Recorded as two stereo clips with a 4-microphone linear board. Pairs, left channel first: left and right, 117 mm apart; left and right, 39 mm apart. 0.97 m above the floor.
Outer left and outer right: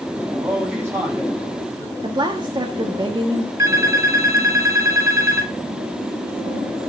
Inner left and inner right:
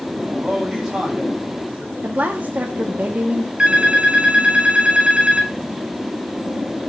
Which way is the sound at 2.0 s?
40° right (ahead or behind).